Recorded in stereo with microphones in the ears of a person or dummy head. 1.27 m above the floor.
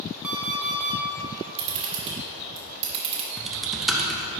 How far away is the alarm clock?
About 0.6 m.